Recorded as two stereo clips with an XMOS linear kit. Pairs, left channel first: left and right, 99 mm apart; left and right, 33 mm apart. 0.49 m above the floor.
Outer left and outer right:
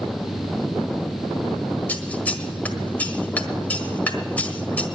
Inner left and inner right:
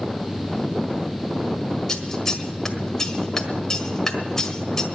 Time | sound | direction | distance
1.9 | scissors | 15° left (ahead or behind) | 1.5 m